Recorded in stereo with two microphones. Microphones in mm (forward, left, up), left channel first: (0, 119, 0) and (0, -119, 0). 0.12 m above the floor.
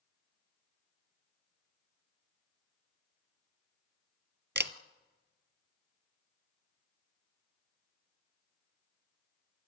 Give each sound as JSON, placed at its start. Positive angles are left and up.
{"t": 4.5, "sound": "a camera shutter", "side_deg": -50, "distance_m": 1.1}